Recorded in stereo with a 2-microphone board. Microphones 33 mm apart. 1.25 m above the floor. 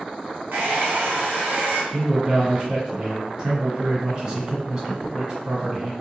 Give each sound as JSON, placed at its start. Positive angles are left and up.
{"t": 0.5, "sound": "a hair dryer", "side_deg": -75, "distance_m": 0.8}
{"t": 1.9, "sound": "a man speaking", "side_deg": -30, "distance_m": 1.4}